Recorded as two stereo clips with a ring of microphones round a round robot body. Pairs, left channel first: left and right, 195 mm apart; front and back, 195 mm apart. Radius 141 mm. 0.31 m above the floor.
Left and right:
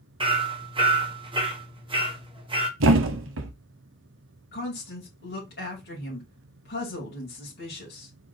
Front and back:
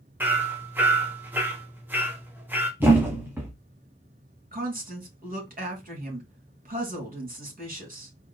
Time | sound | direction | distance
0.2 | hammering | 110° right | 1.2 m
2.8 | a thud | 100° right | 0.9 m
4.5 | a woman speaking | 140° left | 3 m